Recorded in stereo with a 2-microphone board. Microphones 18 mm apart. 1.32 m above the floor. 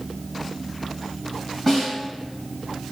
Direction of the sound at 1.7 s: 5° left (ahead or behind).